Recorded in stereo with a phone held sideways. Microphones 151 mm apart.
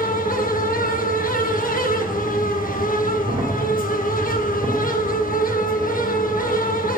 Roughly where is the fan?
Left.